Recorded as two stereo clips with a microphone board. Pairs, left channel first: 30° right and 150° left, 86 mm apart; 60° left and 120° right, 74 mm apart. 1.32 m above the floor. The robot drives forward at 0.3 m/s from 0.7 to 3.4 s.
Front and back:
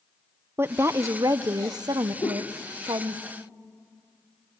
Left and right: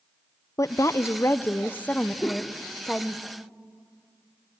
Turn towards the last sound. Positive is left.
turn(degrees=-15)